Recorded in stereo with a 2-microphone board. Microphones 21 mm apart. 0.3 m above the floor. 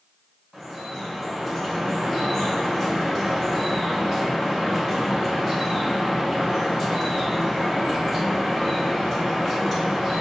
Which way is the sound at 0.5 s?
5° right (ahead or behind).